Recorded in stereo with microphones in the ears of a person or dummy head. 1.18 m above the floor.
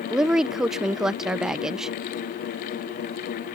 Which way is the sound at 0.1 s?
5° right (ahead or behind).